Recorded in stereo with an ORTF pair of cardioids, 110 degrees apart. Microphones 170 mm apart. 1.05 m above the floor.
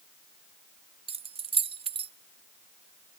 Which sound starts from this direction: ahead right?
Keys jangling, at 1.1 s.